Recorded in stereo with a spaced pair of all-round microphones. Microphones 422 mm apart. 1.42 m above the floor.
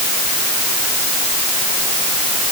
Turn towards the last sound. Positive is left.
No sound to turn to.